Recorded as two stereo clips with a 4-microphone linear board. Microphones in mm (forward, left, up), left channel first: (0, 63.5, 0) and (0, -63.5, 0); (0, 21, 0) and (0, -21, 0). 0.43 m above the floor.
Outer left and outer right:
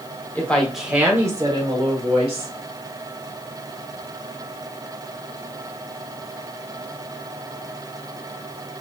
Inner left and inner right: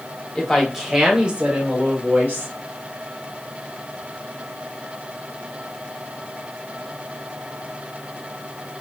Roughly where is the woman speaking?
Centre.